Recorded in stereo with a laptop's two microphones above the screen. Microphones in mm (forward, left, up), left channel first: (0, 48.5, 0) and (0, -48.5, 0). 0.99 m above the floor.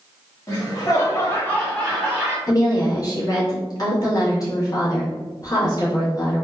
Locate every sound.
0.5 s laughter: 35° left (ahead or behind), 1.3 m; by 2.4 s 10° right (ahead or behind), 1.3 m
2.5 s a woman speaking: 40° left (ahead or behind), 1.1 m